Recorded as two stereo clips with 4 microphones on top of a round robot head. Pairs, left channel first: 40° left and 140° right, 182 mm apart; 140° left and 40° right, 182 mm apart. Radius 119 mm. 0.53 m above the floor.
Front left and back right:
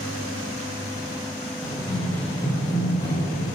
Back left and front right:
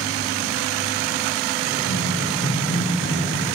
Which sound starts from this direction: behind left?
Running footsteps, at 1.6 s.